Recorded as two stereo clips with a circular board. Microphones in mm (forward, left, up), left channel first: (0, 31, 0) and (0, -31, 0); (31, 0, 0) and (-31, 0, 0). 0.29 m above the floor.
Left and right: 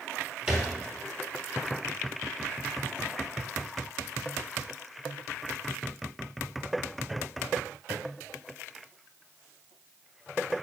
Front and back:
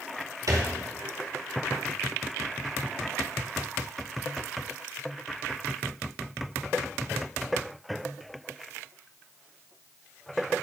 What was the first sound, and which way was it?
A thud, 170° right.